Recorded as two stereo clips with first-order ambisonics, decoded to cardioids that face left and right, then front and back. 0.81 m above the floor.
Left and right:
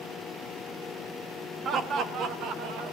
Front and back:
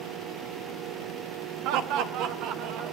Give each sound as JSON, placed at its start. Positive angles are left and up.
{"t": 1.6, "sound": "laughter", "azimuth_deg": -150, "distance_m": 1.7}